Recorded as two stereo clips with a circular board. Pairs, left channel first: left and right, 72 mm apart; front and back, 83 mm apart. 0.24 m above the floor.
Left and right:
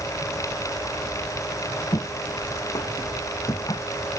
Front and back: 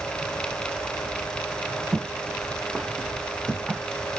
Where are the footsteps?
90° left; by 4.2 s 110° left.